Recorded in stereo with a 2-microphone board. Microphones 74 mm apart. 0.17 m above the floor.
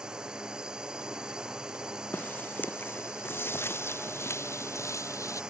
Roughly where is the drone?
Centre.